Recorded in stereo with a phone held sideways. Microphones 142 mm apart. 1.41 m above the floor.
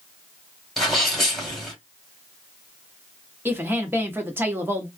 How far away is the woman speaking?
About 0.9 m.